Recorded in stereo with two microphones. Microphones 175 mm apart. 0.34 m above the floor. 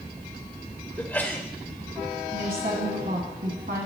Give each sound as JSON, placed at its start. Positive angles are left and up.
{"t": 1.0, "sound": "a sneeze", "side_deg": 10, "distance_m": 0.9}
{"t": 2.3, "sound": "a woman speaking", "side_deg": -70, "distance_m": 2.5}